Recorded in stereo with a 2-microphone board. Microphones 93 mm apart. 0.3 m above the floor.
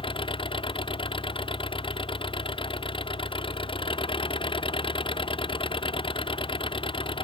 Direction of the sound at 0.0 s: 55° left (ahead or behind).